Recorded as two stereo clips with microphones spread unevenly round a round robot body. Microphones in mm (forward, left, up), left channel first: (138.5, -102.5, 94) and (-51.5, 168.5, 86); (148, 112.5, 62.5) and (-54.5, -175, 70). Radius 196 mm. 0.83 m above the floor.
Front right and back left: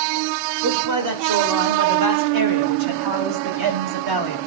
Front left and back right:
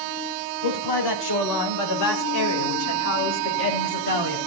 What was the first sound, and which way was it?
A man speaking, 90° left.